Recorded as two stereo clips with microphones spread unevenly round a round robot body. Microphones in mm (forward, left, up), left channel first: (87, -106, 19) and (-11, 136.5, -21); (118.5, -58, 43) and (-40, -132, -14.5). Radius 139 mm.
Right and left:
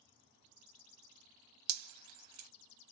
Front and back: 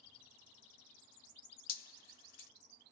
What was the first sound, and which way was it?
Dripping, 80° left.